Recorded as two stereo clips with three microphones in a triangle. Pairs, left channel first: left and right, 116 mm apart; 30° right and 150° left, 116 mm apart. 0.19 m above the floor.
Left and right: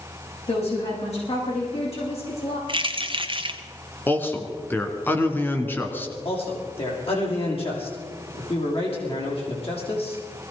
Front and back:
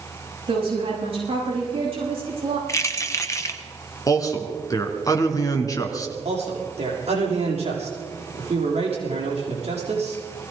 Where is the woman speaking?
110° left, 10 m.